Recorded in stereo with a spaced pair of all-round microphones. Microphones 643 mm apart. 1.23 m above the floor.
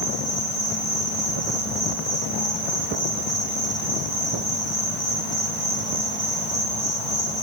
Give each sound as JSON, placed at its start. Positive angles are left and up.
{"t": 0.0, "sound": "an insect", "side_deg": 55, "distance_m": 1.9}